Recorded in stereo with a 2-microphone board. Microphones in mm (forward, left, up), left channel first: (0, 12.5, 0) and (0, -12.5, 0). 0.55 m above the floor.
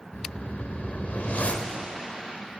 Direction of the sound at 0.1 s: 65° left (ahead or behind).